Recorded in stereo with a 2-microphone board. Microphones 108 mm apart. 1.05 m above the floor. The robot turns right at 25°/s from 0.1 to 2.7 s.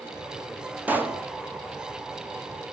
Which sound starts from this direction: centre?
A pop, at 0.9 s.